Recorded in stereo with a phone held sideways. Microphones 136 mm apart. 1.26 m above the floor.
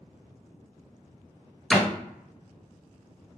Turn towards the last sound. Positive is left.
turn(degrees=5)  # may be behind; listen again after turning